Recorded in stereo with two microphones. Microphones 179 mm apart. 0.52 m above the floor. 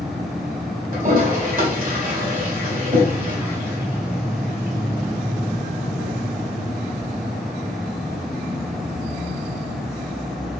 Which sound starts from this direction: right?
A toilet flushing, at 0.9 s.